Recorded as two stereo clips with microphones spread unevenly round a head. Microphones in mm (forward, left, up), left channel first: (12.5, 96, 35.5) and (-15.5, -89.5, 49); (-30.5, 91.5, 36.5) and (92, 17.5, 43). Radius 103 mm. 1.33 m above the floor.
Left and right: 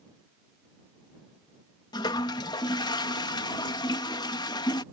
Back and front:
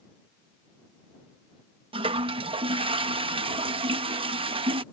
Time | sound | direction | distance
1.9 | a toilet flushing | 10° left | ?